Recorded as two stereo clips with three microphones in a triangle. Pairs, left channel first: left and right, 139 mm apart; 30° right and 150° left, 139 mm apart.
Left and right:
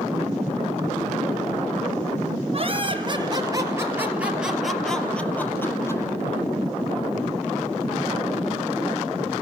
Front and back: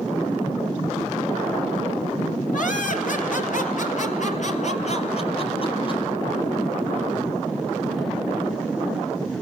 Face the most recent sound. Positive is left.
turn(degrees=20)